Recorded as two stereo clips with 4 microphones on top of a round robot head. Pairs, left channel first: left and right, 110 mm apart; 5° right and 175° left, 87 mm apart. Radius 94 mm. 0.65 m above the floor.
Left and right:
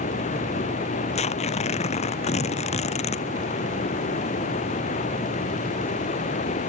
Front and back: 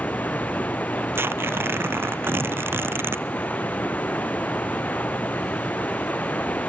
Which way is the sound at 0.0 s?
70° left.